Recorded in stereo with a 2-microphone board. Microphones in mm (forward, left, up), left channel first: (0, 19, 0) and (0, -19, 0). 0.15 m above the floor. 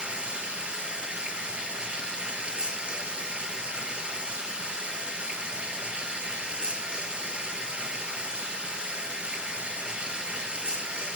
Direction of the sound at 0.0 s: 30° right (ahead or behind).